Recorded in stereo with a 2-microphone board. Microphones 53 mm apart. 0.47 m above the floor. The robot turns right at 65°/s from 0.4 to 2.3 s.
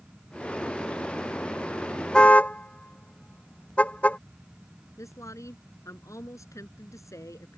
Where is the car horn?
15° left (ahead or behind); by 4.2 s 25° left (ahead or behind).